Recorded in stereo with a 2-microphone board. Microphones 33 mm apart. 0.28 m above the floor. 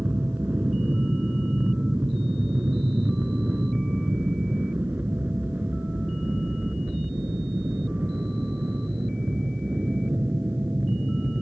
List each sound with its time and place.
0.0 s an aircraft: 65° right (ahead or behind); by 11.4 s 70° right (ahead or behind)